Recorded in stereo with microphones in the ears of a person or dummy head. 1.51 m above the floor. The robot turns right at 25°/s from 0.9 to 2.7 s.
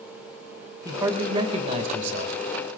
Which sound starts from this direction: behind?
A man speaking, at 0.8 s.